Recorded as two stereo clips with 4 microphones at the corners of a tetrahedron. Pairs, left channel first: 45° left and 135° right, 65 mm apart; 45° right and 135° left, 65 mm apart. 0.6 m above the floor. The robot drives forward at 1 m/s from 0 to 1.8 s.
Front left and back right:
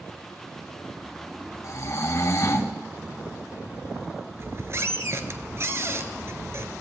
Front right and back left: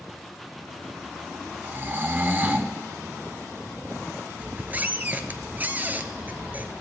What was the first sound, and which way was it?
Snoring, 70° left.